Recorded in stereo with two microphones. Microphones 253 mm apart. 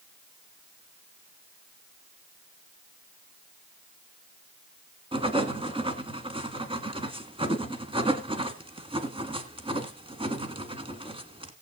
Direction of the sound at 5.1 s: 20° right (ahead or behind).